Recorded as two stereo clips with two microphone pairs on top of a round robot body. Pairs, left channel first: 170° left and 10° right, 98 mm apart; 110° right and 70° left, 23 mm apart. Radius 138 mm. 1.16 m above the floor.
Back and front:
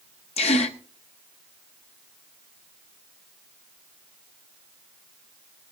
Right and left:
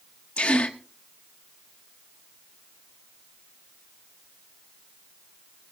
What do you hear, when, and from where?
0.4 s a gasp: 165° right, 0.7 m